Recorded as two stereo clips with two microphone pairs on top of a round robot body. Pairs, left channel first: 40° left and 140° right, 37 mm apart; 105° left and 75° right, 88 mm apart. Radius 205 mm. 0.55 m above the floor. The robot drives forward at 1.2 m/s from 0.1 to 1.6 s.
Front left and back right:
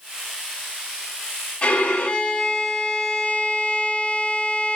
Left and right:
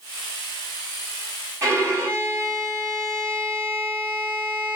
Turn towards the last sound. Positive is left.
turn(degrees=-25)